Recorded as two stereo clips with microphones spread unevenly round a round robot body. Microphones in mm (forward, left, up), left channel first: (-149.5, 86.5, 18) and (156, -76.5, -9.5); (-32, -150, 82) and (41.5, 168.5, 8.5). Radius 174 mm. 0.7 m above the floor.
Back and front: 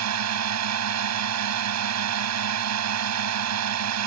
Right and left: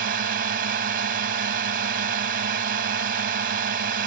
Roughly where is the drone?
Ahead.